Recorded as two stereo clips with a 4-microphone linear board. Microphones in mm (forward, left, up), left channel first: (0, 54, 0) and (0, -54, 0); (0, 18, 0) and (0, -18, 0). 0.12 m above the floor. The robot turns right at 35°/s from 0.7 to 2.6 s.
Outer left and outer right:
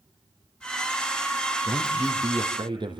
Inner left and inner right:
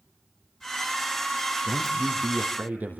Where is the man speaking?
165° right, 4 m; by 3.0 s 130° right, 4 m.